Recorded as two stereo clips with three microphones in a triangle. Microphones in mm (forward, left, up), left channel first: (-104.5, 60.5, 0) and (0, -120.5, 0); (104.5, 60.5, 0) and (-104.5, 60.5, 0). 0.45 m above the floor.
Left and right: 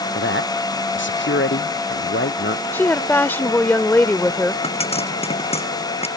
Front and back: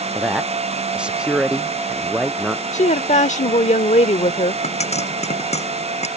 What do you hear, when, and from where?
0.1 s a man speaking: 95° left
2.7 s a woman speaking: 45° left
4.6 s a pop: 60° left